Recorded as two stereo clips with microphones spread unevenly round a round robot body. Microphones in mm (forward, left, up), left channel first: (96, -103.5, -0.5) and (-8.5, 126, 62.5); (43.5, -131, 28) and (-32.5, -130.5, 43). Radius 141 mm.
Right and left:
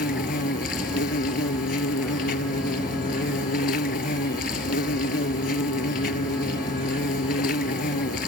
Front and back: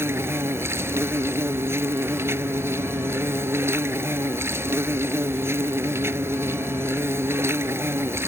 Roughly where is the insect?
Behind right.